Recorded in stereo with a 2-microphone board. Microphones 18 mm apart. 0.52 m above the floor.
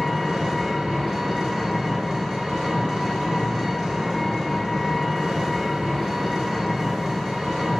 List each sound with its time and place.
0.0 s an engine running: 40° right (ahead or behind), 1.8 m